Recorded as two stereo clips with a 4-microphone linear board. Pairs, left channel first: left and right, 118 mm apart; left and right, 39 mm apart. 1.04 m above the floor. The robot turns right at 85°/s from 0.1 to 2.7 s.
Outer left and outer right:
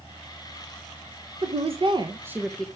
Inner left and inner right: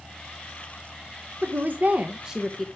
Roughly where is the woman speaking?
Right.